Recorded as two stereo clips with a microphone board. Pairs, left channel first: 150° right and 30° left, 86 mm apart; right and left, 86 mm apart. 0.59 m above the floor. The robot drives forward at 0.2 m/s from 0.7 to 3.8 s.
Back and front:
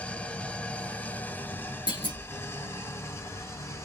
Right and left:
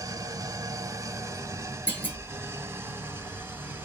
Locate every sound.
0.0 s an engine running: 135° left, 0.8 m; by 3.9 s 155° left, 1.3 m
1.9 s a clunk: 155° right, 1.9 m